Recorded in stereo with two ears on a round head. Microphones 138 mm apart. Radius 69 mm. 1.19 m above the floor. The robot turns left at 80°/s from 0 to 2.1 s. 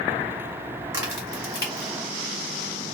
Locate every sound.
0.9 s a crack: 20° right (ahead or behind), 1.3 m; by 1.9 s 55° left (ahead or behind), 1.3 m